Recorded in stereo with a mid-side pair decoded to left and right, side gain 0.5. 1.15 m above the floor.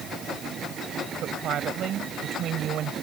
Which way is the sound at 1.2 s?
65° right.